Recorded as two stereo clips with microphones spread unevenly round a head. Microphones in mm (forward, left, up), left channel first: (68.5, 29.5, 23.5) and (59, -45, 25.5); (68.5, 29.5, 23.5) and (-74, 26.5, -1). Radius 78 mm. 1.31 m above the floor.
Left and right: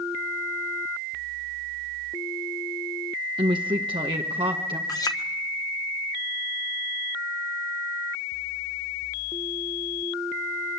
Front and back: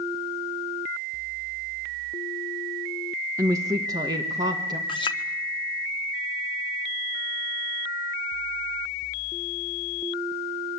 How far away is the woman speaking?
About 1.3 m.